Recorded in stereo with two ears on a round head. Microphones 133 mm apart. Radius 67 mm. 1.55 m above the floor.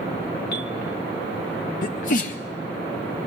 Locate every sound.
0.5 s a bell: 80° left, 1.2 m
1.8 s a sneeze: 60° left (ahead or behind), 0.6 m